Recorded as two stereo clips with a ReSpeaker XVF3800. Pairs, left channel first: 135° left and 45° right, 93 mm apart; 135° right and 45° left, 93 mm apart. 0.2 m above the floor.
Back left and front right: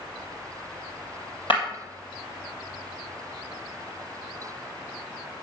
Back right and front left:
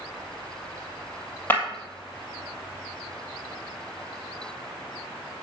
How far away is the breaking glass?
About 2.5 m.